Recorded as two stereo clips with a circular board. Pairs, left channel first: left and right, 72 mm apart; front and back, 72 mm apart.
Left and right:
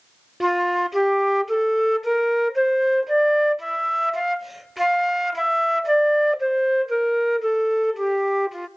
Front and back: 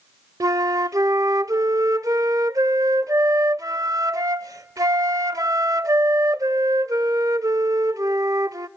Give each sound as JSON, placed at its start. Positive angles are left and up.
{"t": 0.4, "sound": "a flute", "azimuth_deg": -175, "distance_m": 0.6}